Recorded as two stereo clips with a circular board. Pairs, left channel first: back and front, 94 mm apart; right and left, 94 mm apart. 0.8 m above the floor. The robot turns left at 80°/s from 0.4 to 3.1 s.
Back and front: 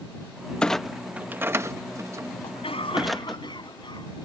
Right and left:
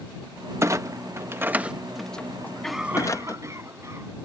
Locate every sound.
0.6 s a clunk: 110° left; by 3.4 s 90° right
2.4 s a cough: 160° right; by 4.2 s 145° left